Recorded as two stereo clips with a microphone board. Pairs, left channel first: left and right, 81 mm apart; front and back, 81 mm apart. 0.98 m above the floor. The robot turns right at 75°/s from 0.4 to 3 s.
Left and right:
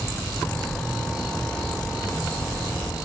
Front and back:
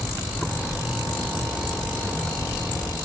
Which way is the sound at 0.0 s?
70° right.